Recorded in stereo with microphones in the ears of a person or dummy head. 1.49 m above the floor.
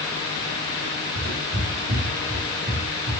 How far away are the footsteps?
About 1.8 m.